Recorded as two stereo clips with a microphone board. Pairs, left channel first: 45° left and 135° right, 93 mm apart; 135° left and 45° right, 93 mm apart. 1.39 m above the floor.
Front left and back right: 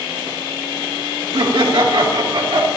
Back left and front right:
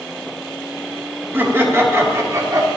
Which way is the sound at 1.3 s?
110° right.